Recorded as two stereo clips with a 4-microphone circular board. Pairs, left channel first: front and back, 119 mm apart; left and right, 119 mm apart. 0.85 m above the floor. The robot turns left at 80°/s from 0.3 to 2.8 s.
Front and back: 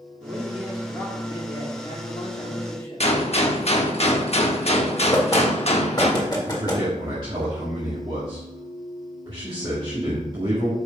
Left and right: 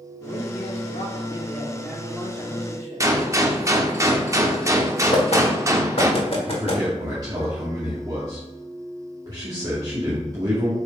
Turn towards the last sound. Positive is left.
turn(degrees=-140)